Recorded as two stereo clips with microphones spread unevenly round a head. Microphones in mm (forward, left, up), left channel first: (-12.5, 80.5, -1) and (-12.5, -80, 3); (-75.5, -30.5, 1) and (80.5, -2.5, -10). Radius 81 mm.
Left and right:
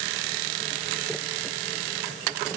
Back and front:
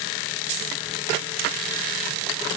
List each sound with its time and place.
Only background noise.